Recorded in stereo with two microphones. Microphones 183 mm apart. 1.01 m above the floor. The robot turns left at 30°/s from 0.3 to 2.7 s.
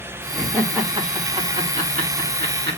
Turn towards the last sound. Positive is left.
turn(degrees=-65)  # may be behind; listen again after turning